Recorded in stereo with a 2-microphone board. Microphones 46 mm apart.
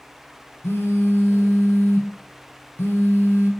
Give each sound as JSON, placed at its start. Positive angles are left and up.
{"t": 0.6, "sound": "a phone buzzing", "side_deg": 60, "distance_m": 0.7}